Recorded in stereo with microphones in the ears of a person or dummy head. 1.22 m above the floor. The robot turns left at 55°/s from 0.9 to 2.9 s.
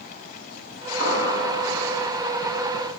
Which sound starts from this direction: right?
An explosion, at 1.0 s.